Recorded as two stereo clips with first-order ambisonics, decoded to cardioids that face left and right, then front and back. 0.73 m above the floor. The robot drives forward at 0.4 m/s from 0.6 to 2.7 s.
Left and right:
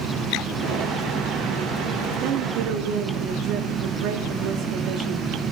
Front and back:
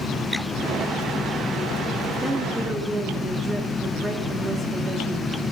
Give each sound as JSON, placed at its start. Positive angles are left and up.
{"t": 2.2, "sound": "a woman speaking", "azimuth_deg": -90, "distance_m": 1.3}